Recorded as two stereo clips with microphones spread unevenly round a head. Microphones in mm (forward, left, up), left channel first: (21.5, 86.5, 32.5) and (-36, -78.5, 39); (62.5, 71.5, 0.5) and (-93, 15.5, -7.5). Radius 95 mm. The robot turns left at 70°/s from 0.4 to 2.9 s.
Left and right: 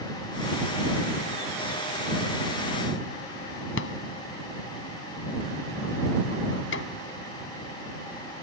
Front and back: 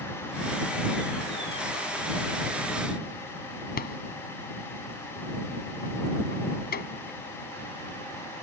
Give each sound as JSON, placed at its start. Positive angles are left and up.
{"t": 3.8, "sound": "a rattle", "azimuth_deg": 50}